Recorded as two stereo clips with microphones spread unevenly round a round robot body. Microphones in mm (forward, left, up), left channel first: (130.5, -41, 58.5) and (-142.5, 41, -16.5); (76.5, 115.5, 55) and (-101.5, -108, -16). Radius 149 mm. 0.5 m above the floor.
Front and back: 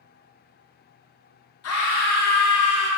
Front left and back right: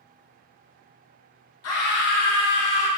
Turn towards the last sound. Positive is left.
turn(degrees=60)